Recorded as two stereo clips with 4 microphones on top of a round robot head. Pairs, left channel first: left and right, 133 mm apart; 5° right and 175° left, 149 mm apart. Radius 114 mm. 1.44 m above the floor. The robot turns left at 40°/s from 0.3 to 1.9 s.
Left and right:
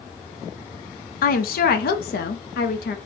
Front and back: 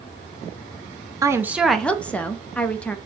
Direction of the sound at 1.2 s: 105° left.